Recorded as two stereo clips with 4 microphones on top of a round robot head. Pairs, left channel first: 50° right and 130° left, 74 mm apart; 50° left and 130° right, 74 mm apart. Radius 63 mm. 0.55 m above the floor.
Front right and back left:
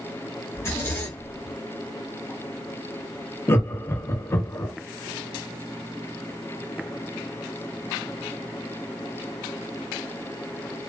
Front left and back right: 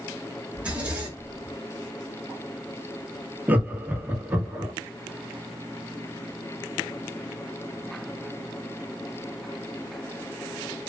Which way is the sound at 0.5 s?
70° right.